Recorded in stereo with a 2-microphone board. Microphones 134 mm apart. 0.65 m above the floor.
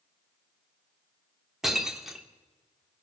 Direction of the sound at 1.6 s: 5° right (ahead or behind).